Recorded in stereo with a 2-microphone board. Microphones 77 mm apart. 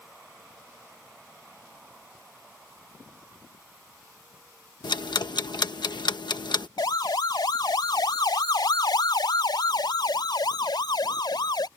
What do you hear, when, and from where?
4.8 s ticking: 85° left
6.8 s a siren: 70° left (ahead or behind); by 11.7 s 75° left (ahead or behind)